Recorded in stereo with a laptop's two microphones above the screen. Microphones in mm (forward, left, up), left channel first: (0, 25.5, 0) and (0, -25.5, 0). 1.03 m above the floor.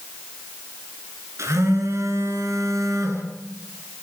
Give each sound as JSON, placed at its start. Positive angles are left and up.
{"t": 1.4, "sound": "a phone buzzing", "side_deg": -70, "distance_m": 8.5}